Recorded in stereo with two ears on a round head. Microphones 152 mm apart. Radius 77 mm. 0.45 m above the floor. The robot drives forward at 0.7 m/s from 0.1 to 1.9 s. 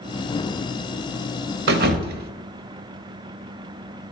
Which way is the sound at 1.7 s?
70° right (ahead or behind).